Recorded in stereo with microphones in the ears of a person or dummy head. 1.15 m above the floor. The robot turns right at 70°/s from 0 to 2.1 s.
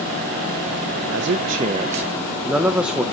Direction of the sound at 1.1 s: 70° right.